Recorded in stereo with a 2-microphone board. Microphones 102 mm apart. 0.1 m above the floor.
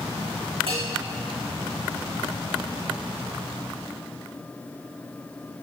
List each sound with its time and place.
0.7 s a bell: 75° right (ahead or behind), 4 m